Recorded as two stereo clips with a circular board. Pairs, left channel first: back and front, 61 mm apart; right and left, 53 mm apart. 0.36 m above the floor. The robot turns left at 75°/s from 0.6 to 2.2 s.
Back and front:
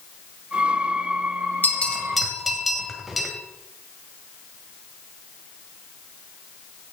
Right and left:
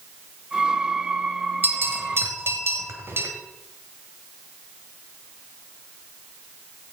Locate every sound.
1.6 s a bell: 130° left, 2 m; by 3.3 s 85° left, 2 m